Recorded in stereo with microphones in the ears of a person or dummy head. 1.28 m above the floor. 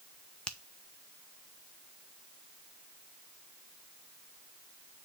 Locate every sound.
0.5 s a finger snap: 5° left (ahead or behind), 0.5 m